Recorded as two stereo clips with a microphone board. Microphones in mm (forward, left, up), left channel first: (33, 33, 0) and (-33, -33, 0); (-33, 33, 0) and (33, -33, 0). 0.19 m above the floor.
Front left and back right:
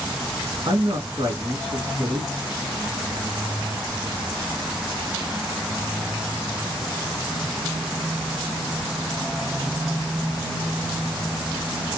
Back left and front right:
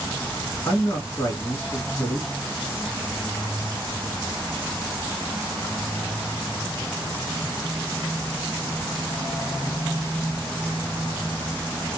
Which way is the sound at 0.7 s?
165° right.